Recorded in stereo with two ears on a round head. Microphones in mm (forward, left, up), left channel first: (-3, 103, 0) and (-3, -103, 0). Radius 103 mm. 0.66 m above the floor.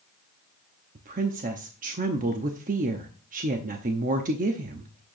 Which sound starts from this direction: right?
A woman speaking, at 0.9 s.